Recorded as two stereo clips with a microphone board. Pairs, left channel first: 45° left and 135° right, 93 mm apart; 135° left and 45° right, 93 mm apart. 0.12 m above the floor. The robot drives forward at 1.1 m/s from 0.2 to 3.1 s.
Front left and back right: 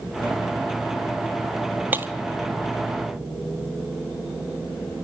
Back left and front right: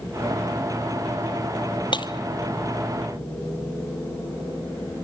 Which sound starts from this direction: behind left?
Breaking glass, at 1.9 s.